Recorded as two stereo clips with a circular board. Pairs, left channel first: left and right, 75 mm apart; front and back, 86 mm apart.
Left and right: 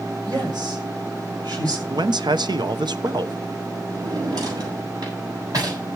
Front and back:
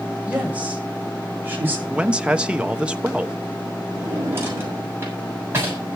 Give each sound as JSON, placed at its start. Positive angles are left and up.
{"t": 0.2, "sound": "a woman speaking", "azimuth_deg": -105, "distance_m": 7.5}
{"t": 1.9, "sound": "a man speaking", "azimuth_deg": -100, "distance_m": 1.0}
{"t": 3.9, "sound": "a drawer", "azimuth_deg": -120, "distance_m": 6.5}